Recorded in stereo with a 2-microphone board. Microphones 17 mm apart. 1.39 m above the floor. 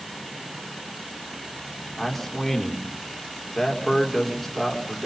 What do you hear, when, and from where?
2.0 s a man speaking: 10° left (ahead or behind), 5 m